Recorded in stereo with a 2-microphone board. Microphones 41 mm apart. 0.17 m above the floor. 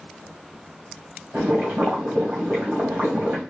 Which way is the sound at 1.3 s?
40° right (ahead or behind).